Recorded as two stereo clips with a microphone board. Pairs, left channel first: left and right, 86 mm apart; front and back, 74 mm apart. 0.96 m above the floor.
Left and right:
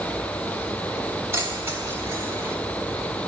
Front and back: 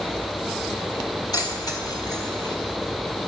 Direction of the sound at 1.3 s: 30° right.